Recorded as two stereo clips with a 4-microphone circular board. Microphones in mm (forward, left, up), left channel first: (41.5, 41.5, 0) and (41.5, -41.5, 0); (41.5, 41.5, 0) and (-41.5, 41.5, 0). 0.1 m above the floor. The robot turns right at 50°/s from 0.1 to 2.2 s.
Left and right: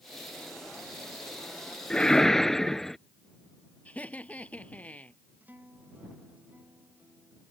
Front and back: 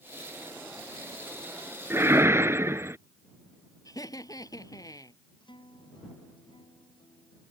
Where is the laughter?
20° left.